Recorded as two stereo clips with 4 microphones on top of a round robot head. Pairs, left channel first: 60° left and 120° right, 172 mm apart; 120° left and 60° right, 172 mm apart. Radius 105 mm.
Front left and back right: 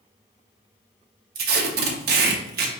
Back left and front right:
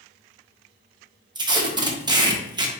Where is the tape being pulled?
120° right, 0.7 m.